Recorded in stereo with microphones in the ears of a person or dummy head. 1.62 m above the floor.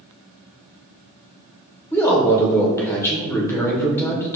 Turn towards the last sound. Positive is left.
turn(degrees=15)  # may be behind; listen again after turning